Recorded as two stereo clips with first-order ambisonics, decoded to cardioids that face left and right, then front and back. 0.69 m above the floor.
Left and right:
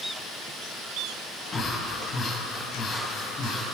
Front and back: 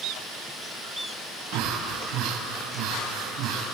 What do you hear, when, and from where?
1.5 s breathing: 150° left, 4.5 m